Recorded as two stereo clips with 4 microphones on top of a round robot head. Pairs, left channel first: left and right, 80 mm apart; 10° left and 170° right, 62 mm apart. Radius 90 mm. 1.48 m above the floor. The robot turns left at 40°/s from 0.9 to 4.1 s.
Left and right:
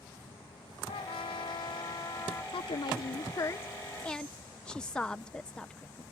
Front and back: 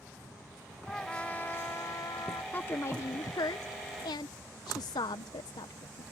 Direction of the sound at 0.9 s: 95° left.